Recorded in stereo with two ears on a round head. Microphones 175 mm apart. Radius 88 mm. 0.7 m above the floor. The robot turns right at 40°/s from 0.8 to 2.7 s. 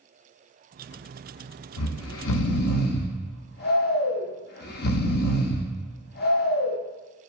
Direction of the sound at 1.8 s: 90° left.